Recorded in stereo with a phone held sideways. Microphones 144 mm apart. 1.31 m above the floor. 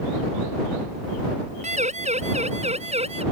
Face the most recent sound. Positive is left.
turn(degrees=-45)  # may be behind; listen again after turning